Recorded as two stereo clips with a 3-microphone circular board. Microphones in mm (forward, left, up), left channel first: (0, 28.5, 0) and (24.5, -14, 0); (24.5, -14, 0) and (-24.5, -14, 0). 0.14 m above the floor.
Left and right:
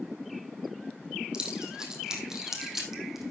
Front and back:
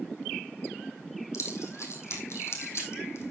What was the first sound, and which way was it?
Keys jangling, 15° left.